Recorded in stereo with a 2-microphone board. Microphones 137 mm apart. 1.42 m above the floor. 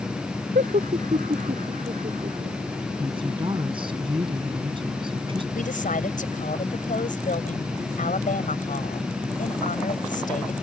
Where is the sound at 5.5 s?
70° left (ahead or behind).